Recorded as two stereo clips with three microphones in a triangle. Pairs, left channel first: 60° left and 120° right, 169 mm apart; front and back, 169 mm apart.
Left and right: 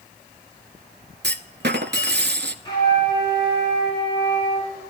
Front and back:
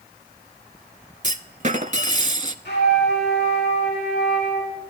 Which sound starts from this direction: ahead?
A flute, at 2.6 s.